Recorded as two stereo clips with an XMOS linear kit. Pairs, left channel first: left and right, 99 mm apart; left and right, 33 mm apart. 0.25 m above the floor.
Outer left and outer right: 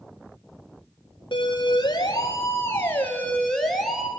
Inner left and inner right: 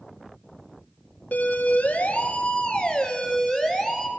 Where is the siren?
55° left (ahead or behind), 4 m; by 4.1 s 5° right (ahead or behind), 4 m.